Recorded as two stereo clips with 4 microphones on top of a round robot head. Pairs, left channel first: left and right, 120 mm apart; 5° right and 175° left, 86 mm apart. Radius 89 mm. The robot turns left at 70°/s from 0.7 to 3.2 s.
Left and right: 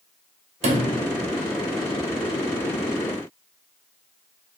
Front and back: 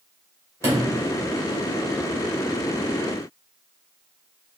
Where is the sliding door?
125° right, 2.5 m; by 1.1 s 150° right, 2.5 m.